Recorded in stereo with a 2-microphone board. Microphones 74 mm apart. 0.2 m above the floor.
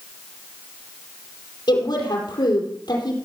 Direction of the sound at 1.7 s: 70° left (ahead or behind).